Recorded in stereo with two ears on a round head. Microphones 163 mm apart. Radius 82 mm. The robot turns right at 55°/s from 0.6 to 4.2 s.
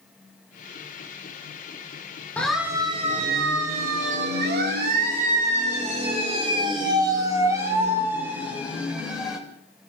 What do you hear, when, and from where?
2.4 s a siren: 10° left (ahead or behind), 3.5 m; by 9.4 s 5° right (ahead or behind), 5 m